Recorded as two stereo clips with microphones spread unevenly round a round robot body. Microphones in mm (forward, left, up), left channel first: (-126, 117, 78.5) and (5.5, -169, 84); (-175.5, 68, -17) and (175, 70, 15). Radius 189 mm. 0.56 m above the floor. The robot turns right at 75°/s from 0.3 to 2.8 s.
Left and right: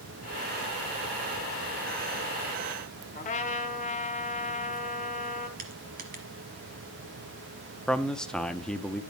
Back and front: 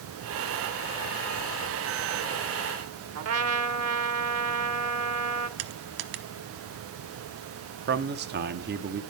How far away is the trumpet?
About 1.2 m.